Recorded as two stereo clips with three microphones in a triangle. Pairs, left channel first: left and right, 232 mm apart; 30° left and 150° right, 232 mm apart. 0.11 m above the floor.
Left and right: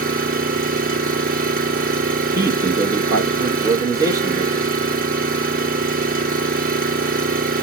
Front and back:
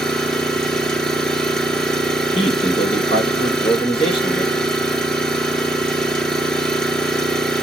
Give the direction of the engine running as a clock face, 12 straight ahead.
2 o'clock.